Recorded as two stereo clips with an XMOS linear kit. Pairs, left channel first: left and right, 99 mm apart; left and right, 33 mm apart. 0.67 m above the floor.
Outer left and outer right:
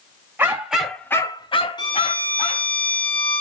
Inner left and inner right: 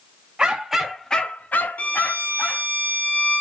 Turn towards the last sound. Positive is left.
turn(degrees=50)  # may be behind; listen again after turning